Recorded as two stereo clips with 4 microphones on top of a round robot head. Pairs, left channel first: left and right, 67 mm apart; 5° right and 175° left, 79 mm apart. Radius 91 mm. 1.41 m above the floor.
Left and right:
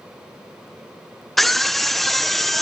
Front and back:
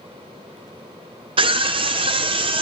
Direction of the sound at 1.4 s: 175° left.